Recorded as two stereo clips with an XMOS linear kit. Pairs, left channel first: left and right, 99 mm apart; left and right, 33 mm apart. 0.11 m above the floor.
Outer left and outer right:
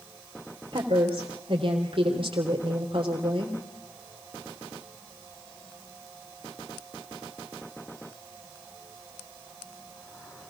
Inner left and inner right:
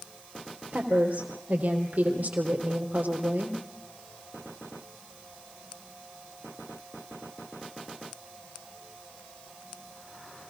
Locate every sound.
0.7 s a woman speaking: 60° right (ahead or behind), 3.5 m